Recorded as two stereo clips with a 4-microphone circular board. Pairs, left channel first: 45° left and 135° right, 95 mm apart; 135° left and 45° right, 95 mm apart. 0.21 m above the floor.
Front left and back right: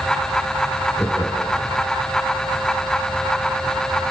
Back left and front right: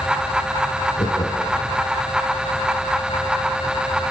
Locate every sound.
1.0 s laughter: 110° left, 4 m